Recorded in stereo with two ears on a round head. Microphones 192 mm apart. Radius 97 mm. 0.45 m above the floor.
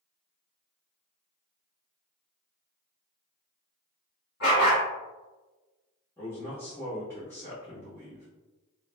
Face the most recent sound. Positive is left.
turn(degrees=10)  # may be behind; listen again after turning